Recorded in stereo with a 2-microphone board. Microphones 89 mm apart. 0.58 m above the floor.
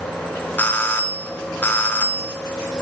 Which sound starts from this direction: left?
A doorbell, at 0.6 s.